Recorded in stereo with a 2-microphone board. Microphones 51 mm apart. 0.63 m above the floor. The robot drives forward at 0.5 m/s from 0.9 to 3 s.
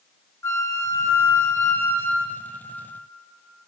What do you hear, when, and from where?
0.4 s a flute: 65° left (ahead or behind), 0.6 m; by 2.6 s 35° left (ahead or behind), 0.9 m